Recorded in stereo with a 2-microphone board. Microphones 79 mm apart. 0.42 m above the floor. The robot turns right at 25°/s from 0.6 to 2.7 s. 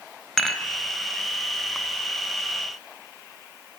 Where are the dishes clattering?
5° left (ahead or behind), 1.3 m.